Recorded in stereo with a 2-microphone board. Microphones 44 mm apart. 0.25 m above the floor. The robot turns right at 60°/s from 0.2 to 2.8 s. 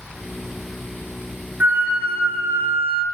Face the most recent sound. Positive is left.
turn(degrees=-70)